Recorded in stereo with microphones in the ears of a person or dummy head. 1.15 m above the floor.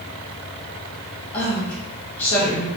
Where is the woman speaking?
10° left (ahead or behind), 1.5 m.